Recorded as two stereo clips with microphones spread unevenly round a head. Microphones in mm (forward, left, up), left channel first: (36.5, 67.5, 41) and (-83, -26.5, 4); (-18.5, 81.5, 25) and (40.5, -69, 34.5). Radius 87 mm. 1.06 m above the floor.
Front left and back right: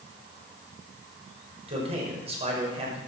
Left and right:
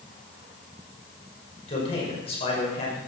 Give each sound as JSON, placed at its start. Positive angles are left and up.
{"t": 1.7, "sound": "a man speaking", "azimuth_deg": 170, "distance_m": 5.5}